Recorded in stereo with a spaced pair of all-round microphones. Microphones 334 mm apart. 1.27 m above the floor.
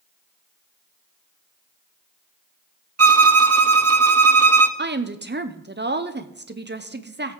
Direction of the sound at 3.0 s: 45° right (ahead or behind).